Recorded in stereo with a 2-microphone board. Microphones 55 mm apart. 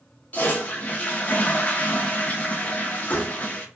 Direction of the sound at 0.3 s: 30° left (ahead or behind).